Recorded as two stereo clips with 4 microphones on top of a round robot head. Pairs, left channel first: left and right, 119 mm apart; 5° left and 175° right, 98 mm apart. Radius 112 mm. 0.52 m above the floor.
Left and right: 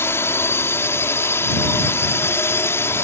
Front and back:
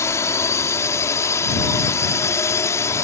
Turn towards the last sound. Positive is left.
turn(degrees=35)